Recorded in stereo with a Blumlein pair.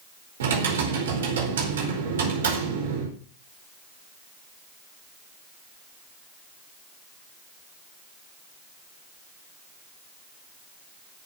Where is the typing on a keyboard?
65° right, 4.5 m.